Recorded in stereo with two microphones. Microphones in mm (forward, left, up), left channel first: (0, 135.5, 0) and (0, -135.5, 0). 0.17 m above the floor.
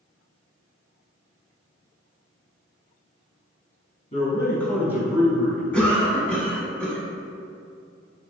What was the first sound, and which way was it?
A man speaking, 25° left (ahead or behind).